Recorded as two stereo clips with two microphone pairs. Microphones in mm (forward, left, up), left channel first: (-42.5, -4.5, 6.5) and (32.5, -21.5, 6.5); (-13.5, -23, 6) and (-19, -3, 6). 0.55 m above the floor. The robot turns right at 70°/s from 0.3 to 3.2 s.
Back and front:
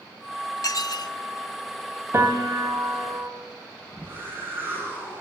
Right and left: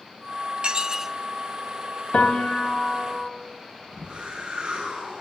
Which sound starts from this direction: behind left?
Dishes clattering, at 0.6 s.